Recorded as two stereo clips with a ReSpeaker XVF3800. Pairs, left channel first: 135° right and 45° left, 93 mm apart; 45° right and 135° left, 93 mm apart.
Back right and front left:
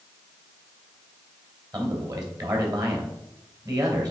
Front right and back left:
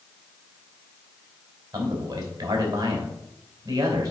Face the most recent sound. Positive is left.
turn(degrees=90)